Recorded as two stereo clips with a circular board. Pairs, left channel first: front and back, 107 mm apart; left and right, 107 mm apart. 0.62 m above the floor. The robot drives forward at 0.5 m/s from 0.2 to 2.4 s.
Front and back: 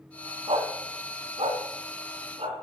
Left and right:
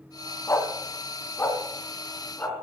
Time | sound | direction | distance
0.5 | a dog barking | 155° left | 1.7 m